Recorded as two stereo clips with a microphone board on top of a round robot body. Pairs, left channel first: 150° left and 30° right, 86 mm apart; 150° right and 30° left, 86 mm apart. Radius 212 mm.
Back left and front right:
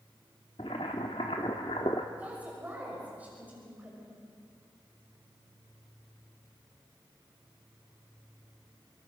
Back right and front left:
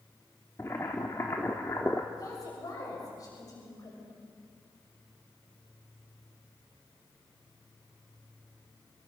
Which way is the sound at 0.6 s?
155° left.